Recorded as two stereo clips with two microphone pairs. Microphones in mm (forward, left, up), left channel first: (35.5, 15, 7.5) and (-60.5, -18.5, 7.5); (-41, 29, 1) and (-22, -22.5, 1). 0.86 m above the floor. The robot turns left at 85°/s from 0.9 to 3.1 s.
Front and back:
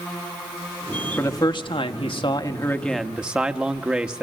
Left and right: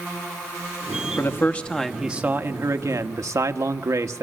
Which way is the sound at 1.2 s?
85° left.